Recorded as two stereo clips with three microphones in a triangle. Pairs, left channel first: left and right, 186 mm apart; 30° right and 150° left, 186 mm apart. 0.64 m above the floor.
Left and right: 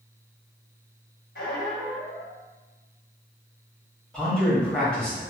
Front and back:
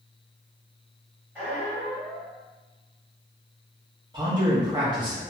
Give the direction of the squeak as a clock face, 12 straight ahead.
10 o'clock.